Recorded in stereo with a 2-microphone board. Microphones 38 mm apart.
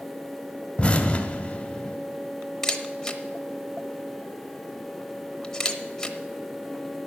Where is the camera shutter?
15° left (ahead or behind), 0.8 m.